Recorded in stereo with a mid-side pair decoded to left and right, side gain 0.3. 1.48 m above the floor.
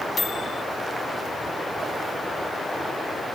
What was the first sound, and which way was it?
A microwave, 65° left.